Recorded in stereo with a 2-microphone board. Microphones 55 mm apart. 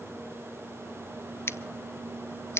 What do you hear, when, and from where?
1.5 s scissors: 50° left (ahead or behind), 0.6 m